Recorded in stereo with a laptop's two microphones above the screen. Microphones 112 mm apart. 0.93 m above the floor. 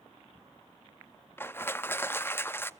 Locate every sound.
1.4 s crushing: 20° left (ahead or behind), 0.6 m